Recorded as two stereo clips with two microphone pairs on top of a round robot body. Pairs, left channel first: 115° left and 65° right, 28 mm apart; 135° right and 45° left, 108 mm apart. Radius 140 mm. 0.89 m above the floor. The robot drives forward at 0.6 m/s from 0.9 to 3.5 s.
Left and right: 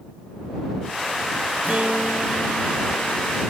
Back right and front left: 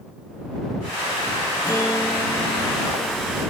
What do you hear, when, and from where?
1.6 s a guitar: 70° right, 1.7 m; by 3.4 s 105° right, 1.6 m